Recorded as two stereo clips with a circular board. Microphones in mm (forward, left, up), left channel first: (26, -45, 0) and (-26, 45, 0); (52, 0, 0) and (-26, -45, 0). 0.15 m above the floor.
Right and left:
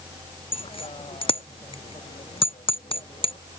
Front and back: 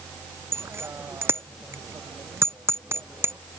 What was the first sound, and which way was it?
A bicycle bell, 90° right.